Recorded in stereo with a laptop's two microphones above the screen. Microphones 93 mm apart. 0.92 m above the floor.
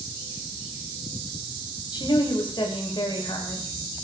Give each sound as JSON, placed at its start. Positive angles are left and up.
{"t": 1.9, "sound": "a woman speaking", "side_deg": 55, "distance_m": 5.5}